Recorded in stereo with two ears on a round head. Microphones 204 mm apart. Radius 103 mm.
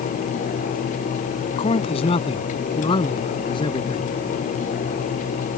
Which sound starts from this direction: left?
A man speaking, at 1.6 s.